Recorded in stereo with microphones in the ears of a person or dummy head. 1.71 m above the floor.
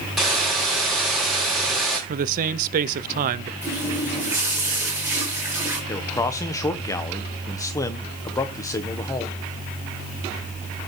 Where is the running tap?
15° right (ahead or behind), 5 m.